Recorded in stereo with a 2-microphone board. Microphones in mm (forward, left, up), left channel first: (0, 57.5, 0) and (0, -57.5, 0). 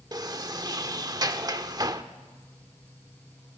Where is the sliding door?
35° right (ahead or behind), 0.9 m.